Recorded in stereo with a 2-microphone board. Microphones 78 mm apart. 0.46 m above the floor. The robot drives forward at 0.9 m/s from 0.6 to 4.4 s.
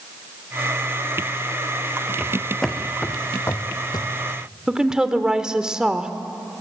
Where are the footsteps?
5° right (ahead or behind), 2 m; by 4.1 s 65° left (ahead or behind), 1.5 m.